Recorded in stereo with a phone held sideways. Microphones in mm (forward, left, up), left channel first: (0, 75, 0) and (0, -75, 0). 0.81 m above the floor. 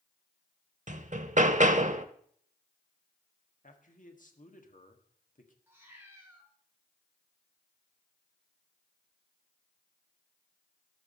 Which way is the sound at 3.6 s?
55° left (ahead or behind).